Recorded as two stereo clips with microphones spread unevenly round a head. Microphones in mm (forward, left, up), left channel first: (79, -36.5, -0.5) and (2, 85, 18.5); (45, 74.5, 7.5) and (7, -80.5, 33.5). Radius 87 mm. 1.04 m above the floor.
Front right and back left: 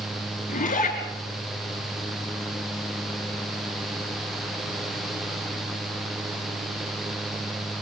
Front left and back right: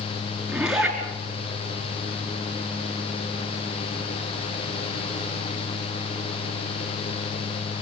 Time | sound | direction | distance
0.5 | a zipper | 20° right | 5 m